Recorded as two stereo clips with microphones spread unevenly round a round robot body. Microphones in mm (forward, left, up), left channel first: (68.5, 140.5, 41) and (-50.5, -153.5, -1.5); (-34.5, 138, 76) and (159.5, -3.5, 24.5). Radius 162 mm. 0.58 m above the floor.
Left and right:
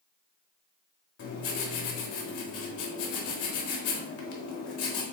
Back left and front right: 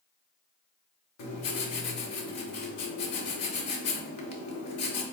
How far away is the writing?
About 0.9 m.